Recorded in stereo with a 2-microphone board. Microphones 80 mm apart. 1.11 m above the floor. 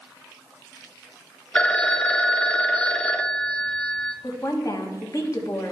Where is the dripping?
I don't hear dripping.